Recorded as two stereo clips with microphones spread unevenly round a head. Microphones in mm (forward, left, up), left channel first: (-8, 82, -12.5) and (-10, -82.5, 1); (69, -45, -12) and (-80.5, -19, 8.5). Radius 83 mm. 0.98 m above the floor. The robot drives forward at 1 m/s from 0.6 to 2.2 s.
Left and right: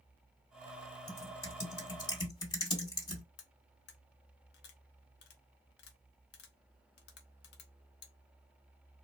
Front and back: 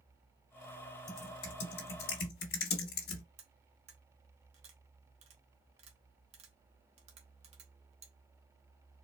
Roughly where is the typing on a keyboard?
Ahead.